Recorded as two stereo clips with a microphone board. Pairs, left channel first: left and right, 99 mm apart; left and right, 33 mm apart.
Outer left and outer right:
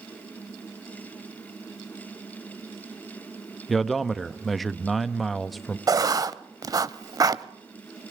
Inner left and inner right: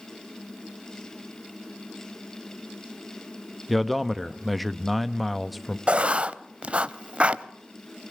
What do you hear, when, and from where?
3.7 s a man speaking: centre (ahead or behind), 0.7 m
5.9 s writing: 40° right (ahead or behind), 0.7 m